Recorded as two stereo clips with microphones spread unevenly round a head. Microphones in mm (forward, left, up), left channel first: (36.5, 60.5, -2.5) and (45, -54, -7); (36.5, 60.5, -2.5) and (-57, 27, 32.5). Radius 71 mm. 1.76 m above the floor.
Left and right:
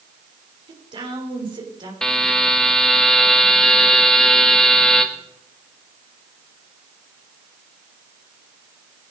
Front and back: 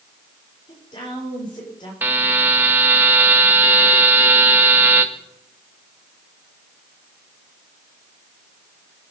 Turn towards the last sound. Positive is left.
turn(degrees=175)